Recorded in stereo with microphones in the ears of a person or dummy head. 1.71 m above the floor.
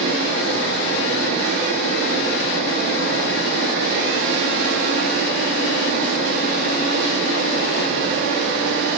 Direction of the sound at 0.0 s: 70° right (ahead or behind).